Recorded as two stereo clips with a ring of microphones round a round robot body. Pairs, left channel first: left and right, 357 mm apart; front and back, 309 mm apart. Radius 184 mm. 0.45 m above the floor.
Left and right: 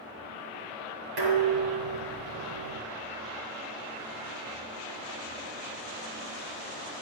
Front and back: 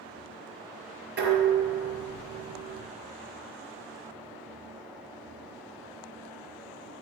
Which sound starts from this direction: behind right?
Dishes clattering, at 1.2 s.